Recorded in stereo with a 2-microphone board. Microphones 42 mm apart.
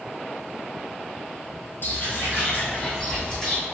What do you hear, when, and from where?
1.8 s footsteps: 60° left (ahead or behind), 1.7 m; by 3.6 s 20° left (ahead or behind), 3 m